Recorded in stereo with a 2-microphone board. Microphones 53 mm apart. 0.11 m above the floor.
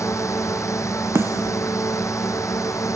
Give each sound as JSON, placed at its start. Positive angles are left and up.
{"t": 0.0, "sound": "a drone", "side_deg": 65}
{"t": 1.1, "sound": "a snare drum", "side_deg": -55}